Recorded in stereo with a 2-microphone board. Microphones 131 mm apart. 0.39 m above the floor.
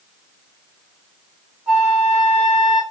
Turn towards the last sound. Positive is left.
turn(degrees=-5)  # may be behind; listen again after turning